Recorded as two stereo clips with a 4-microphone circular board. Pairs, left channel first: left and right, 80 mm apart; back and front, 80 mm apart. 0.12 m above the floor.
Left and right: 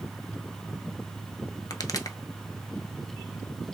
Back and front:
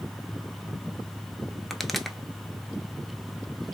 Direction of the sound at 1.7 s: 90° left.